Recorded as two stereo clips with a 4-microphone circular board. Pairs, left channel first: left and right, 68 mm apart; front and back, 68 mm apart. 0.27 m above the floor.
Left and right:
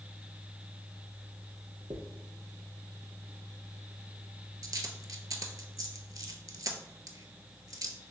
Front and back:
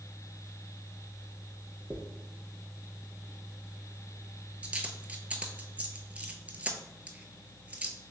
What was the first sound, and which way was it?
A dropped coin, 110° right.